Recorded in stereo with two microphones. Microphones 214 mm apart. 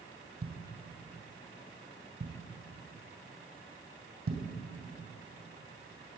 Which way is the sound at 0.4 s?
85° right.